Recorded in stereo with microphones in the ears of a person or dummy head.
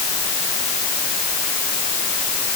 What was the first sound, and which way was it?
Only background noise.